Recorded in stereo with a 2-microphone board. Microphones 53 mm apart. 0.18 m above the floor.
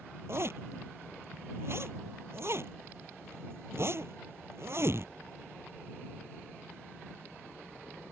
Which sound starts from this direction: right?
A zipper, at 0.3 s.